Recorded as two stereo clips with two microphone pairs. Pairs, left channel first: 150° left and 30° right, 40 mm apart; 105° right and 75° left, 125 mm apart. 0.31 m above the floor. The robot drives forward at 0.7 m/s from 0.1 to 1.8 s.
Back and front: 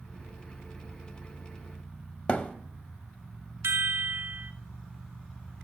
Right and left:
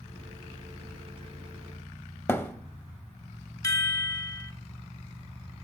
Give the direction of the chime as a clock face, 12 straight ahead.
1 o'clock.